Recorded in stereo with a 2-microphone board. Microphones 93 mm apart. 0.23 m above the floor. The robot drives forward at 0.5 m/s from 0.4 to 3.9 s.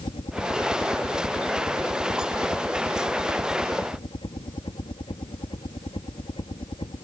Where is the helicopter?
65° left (ahead or behind); by 7.0 s 60° left (ahead or behind).